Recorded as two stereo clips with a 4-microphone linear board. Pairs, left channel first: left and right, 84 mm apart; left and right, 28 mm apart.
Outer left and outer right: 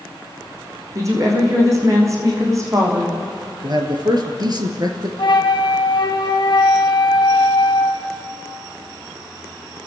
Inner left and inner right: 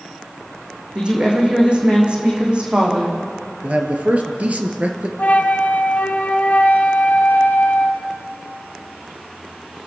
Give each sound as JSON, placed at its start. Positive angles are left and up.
{"t": 0.9, "sound": "a woman speaking", "side_deg": -40, "distance_m": 6.0}
{"t": 3.6, "sound": "a man speaking", "side_deg": -55, "distance_m": 3.0}
{"t": 5.2, "sound": "a flute", "side_deg": 65, "distance_m": 1.4}